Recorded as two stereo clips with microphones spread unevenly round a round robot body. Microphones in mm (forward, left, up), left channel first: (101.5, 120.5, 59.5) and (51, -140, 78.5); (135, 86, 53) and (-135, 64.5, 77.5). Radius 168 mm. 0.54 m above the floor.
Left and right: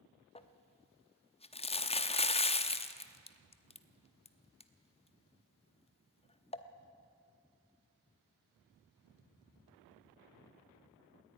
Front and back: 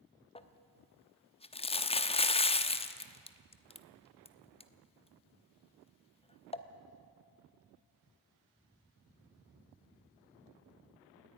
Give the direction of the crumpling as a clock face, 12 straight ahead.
11 o'clock.